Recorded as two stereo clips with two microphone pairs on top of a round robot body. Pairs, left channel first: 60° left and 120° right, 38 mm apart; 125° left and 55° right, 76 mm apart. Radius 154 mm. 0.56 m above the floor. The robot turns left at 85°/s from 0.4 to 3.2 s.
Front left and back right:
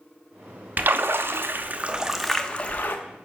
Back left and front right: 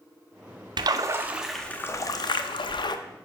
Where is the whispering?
No whispering in this recording.